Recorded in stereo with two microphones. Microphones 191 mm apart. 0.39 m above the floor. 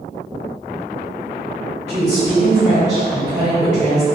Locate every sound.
1.9 s a woman speaking: 40° right (ahead or behind), 1.5 m